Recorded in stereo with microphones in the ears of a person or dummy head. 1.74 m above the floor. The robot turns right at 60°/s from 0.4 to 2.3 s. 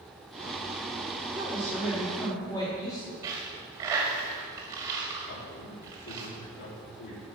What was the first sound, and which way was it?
A woman speaking, 35° right.